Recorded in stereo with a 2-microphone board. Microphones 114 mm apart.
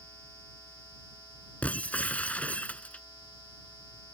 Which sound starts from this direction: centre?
Breaking glass, at 1.6 s.